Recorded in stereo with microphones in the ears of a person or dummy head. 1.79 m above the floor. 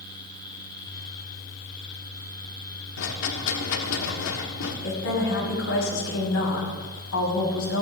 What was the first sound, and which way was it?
A rattle, 75° left (ahead or behind).